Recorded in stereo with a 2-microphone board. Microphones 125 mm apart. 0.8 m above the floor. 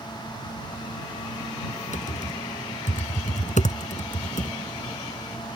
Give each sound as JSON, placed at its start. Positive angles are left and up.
{"t": 1.9, "sound": "typing on a keyboard", "side_deg": 75}